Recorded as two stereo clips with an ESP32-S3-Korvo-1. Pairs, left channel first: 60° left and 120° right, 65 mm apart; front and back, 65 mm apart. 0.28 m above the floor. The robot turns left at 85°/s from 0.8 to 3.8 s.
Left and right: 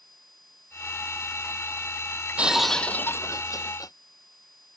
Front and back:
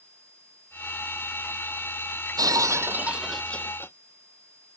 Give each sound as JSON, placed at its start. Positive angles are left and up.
{"t": 2.4, "sound": "breaking glass", "azimuth_deg": 175}